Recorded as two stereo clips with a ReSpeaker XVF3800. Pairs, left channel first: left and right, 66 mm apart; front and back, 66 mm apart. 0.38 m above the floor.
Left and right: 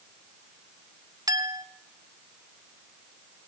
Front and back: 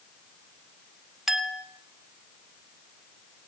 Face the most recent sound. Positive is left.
turn(degrees=-95)